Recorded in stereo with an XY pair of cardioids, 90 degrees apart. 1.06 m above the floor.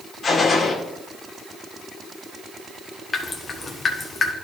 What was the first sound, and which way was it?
A gunshot, 50° left.